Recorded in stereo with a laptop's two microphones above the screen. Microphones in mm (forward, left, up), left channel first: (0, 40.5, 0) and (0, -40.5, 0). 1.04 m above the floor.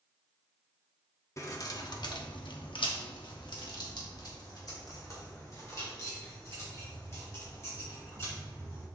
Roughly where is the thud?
No thud in this recording.